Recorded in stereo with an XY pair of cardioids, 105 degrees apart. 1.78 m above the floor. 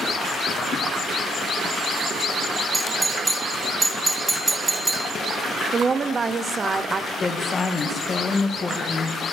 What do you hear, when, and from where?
2.7 s a doorbell: 15° right, 0.8 m
5.7 s a woman speaking: 35° right, 0.9 m
7.1 s a woman speaking: 30° left, 1.9 m